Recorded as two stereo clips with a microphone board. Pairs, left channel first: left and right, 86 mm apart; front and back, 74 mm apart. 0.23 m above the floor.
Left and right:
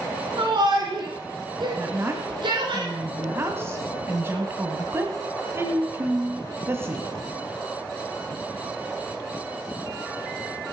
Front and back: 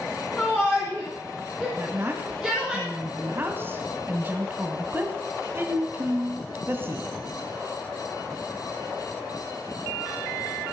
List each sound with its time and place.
0.4 s a shout: 70° right, 3 m; by 2.8 s 95° right, 3.5 m
1.8 s a woman speaking: 135° right, 1.7 m